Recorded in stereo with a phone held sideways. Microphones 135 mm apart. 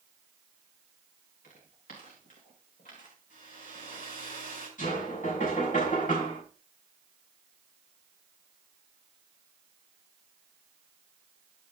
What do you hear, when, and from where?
1.4 s footsteps: 80° left, 5.5 m; by 4.1 s 70° left (ahead or behind), 2.5 m
3.3 s a hair dryer: 80° left, 5.5 m
4.8 s knocking: 70° left (ahead or behind), 6 m